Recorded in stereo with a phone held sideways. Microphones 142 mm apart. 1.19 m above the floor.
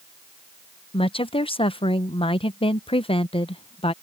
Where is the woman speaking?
40° left (ahead or behind).